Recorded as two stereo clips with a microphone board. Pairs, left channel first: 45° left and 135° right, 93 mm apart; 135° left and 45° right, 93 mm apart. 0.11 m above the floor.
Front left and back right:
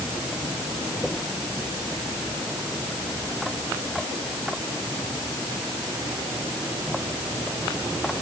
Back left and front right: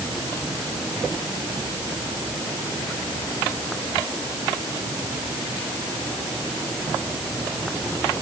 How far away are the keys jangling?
No keys jangling in this recording.